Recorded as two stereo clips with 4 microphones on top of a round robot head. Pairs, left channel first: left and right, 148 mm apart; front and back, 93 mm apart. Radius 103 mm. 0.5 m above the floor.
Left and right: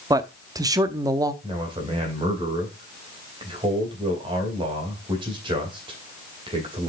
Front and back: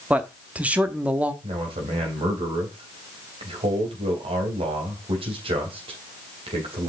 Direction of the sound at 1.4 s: 150° right.